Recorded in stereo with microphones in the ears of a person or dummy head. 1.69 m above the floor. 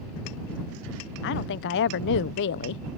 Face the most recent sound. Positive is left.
turn(degrees=65)  # may be behind; listen again after turning